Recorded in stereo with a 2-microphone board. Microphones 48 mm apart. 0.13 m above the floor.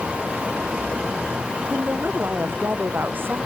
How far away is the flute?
I don't hear a flute.